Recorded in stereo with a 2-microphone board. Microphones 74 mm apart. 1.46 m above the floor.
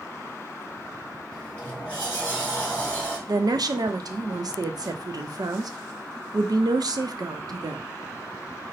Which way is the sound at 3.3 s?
60° right (ahead or behind).